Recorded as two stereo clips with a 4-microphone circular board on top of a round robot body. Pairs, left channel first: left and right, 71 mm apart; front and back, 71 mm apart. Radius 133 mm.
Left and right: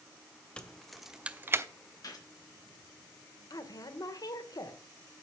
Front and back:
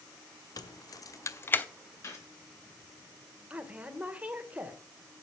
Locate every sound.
0.6 s keys jangling: 15° left, 1.5 m; by 1.6 s 60° right, 1.0 m
2.0 s a gunshot: 50° left, 3 m
3.5 s a woman speaking: 110° left, 1.9 m